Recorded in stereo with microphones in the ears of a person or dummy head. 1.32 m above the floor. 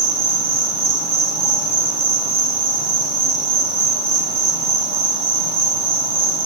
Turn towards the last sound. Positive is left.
turn(degrees=-30)  # may be behind; listen again after turning